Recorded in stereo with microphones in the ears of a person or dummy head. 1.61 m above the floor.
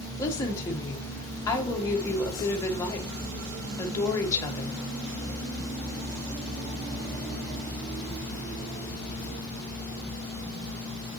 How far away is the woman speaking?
About 1.5 m.